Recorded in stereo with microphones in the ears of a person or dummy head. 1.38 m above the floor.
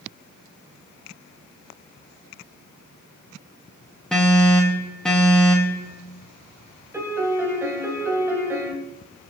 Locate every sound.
4.1 s an alarm: 5° left (ahead or behind), 3 m
6.9 s a piano: 10° right (ahead or behind), 2.5 m